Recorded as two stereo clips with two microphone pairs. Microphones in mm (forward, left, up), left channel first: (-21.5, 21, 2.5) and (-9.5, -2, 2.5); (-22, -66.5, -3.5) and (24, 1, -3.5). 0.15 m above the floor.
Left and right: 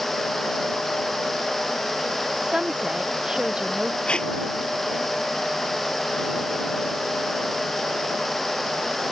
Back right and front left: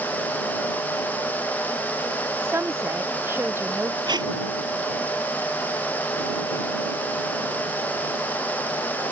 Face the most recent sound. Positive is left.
turn(degrees=75)